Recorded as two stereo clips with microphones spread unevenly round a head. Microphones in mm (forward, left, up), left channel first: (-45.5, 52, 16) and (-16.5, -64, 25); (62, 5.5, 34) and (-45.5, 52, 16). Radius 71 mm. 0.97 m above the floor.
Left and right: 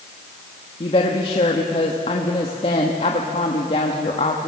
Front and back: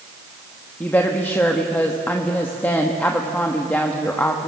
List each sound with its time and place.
0.8 s a woman speaking: 55° left, 1.2 m